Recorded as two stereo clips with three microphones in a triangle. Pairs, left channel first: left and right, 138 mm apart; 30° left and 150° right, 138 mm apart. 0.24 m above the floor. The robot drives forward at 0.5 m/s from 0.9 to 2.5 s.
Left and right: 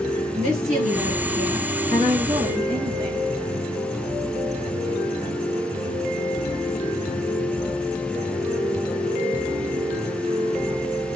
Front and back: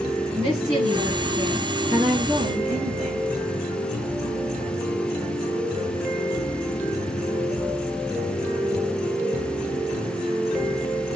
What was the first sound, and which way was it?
A woman speaking, 120° right.